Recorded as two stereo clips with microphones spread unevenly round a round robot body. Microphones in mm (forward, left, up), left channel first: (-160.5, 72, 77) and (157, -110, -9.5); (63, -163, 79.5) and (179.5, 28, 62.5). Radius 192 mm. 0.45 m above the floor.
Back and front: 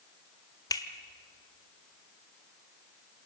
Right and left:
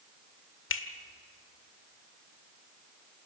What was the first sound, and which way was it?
A finger snap, 125° right.